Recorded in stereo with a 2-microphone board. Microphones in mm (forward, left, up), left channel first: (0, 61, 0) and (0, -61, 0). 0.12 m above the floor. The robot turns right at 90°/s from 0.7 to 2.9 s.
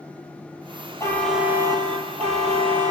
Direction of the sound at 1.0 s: 155° left.